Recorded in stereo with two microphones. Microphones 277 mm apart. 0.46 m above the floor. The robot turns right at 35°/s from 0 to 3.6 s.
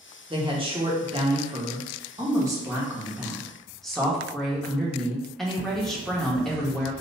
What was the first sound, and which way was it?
A woman speaking, 20° right (ahead or behind).